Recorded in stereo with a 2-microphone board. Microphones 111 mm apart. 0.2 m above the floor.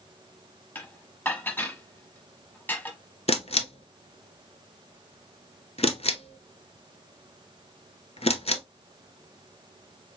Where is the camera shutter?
65° left (ahead or behind), 0.6 m.